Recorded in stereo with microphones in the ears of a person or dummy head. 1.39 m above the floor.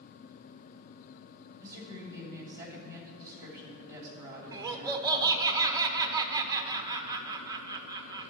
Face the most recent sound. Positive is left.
turn(degrees=-20)  # may be behind; listen again after turning